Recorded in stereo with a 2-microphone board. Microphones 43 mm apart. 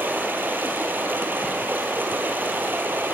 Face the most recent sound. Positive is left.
turn(degrees=-55)  # may be behind; listen again after turning